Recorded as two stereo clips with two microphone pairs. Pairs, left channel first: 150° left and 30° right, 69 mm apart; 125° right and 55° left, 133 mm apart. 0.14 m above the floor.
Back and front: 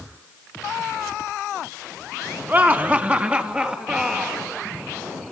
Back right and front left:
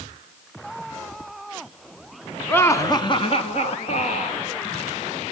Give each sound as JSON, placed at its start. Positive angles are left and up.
{"t": 2.5, "sound": "laughter", "azimuth_deg": -65, "distance_m": 1.7}